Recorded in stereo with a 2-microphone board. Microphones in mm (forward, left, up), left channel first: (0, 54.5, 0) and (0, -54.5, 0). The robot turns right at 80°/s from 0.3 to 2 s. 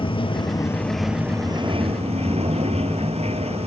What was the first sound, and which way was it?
Running water, 125° left.